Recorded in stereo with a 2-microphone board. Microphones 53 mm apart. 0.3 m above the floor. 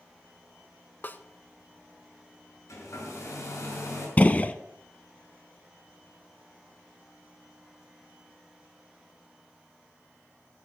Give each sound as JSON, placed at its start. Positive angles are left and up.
{"t": 1.0, "sound": "a snare drum", "side_deg": 40, "distance_m": 0.6}
{"t": 2.7, "sound": "a hair dryer", "side_deg": 75, "distance_m": 5.5}
{"t": 4.2, "sound": "a gunshot", "side_deg": 30, "distance_m": 0.6}